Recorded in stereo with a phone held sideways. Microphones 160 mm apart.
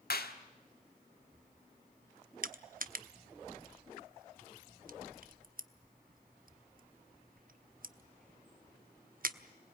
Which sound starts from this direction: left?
A clap, at 0.1 s.